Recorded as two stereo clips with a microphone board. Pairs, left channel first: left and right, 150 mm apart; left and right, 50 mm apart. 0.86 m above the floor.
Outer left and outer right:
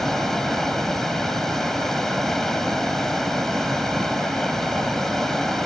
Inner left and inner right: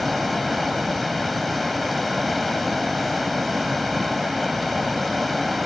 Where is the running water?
Centre (ahead or behind).